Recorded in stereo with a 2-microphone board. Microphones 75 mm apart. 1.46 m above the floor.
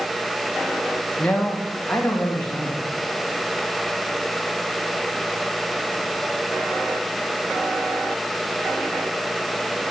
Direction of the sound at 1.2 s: 15° left (ahead or behind).